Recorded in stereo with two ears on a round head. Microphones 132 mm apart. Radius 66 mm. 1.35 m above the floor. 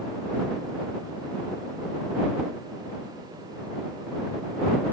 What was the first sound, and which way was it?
Only background noise.